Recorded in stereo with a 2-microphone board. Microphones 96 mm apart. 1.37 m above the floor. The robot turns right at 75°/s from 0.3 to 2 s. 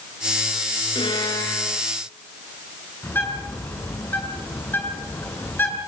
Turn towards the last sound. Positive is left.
turn(degrees=20)  # may be behind; listen again after turning